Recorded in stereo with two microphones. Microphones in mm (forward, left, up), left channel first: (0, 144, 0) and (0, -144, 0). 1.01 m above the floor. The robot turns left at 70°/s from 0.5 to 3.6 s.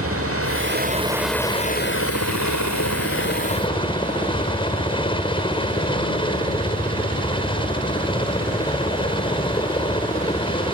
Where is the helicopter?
125° right; by 10.8 s 20° left.